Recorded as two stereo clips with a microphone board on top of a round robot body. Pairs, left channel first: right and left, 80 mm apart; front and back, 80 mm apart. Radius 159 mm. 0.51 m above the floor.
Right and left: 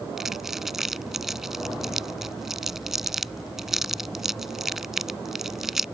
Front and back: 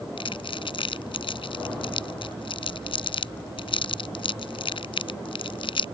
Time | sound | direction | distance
0.2 | crumpling | 5° left | ?